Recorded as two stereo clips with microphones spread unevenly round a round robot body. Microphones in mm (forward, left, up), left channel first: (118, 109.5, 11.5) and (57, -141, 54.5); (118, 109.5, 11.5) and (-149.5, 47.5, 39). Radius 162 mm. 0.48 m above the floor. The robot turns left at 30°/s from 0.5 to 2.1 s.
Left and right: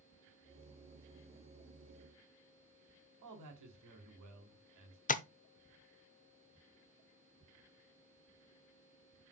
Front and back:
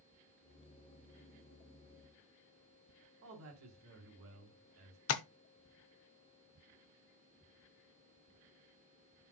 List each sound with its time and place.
3.2 s a man speaking: 120° right, 2.5 m
5.1 s tapping: 25° left, 0.9 m